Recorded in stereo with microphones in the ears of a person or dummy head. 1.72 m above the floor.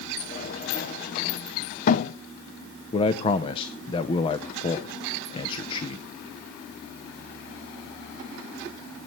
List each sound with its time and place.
0.2 s a sliding door: 45° left (ahead or behind), 0.8 m
2.9 s a man speaking: 25° left (ahead or behind), 0.8 m